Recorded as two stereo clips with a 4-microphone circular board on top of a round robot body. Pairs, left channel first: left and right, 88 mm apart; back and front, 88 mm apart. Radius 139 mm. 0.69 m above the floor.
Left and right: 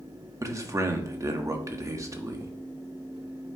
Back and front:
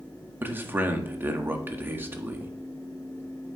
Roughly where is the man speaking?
Ahead right.